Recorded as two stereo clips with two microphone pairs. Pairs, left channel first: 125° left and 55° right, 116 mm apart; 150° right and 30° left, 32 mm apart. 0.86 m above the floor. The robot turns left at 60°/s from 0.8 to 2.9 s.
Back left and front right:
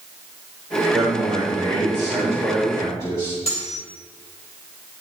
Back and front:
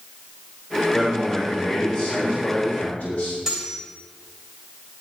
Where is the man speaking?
65° right, 3.5 m; by 3.4 s straight behind, 3.5 m.